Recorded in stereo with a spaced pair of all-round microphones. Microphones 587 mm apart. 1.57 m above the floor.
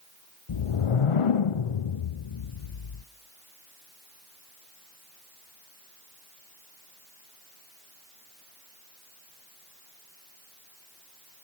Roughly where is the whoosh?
Left.